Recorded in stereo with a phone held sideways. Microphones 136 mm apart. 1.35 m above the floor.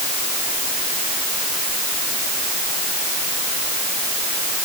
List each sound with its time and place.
Only background noise.